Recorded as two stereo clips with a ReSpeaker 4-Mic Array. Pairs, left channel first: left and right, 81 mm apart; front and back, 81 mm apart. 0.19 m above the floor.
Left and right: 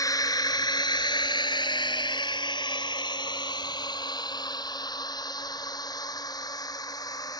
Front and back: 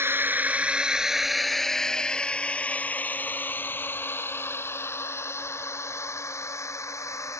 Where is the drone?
125° left; by 7.4 s 50° left.